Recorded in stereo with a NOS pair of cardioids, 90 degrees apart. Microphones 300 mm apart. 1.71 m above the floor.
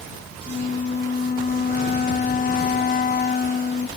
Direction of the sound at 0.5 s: 30° left.